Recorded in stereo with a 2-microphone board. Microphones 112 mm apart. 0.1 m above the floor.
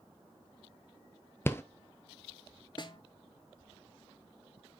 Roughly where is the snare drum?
Left.